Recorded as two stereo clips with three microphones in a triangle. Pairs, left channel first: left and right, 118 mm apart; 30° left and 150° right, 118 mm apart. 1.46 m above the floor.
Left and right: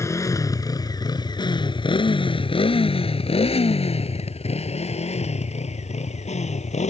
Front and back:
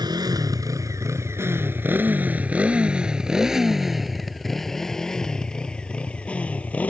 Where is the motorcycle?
155° left; by 6.9 s 105° left.